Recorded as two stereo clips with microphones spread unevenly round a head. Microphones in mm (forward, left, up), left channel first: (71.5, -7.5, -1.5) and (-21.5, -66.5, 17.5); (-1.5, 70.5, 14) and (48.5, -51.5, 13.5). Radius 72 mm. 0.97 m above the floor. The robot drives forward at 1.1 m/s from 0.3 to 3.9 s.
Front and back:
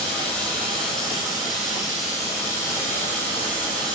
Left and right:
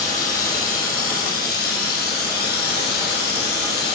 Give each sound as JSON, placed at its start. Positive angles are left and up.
{"t": 0.0, "sound": "running water", "azimuth_deg": 90, "distance_m": 7.5}